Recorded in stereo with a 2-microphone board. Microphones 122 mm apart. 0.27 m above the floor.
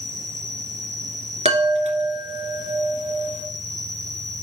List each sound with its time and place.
0.0 s an insect: 85° right, 5 m
1.4 s a chime: 65° right (ahead or behind), 2 m